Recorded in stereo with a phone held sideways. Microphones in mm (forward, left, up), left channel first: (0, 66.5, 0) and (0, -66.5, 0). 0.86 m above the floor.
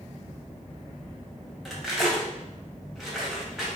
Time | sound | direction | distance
1.6 | cutlery clinking | centre (ahead or behind) | 0.6 m